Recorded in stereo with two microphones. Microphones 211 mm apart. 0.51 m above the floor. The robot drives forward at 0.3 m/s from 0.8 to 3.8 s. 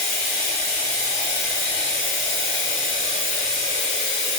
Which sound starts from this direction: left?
Running water, at 0.0 s.